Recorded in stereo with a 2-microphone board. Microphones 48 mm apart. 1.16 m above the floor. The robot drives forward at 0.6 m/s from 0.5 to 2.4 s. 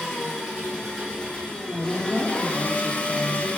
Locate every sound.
0.0 s an engine running: 10° left (ahead or behind), 1.7 m; by 3.6 s 25° left (ahead or behind), 0.7 m
1.7 s a woman speaking: 40° right (ahead or behind), 0.9 m; by 3.5 s 25° right (ahead or behind), 1.2 m